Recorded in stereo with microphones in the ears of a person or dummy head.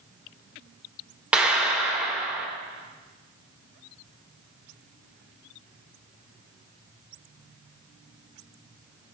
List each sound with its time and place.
1.3 s a clap: 5° right (ahead or behind), 3.5 m